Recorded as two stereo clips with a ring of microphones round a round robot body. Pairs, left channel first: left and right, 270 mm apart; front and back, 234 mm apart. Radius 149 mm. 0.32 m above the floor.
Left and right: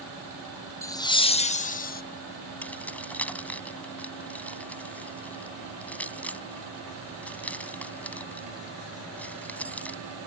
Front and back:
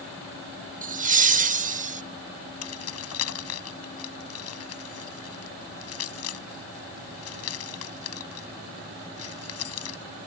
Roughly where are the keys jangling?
Ahead.